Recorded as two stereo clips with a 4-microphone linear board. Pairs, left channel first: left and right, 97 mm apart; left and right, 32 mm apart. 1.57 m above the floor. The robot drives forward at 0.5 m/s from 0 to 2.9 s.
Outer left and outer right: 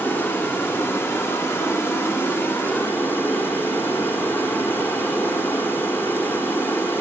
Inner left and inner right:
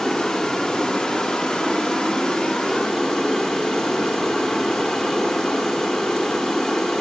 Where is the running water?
20° left (ahead or behind), 1.4 m.